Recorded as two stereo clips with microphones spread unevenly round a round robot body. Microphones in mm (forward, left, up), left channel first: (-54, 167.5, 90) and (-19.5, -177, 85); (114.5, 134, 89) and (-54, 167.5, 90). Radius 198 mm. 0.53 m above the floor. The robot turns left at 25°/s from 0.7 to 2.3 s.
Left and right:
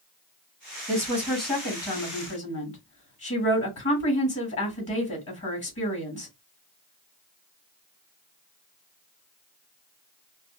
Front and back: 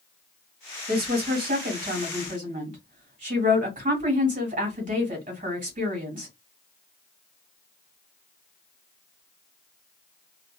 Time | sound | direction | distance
0.9 | a woman speaking | 175° left | 2.0 m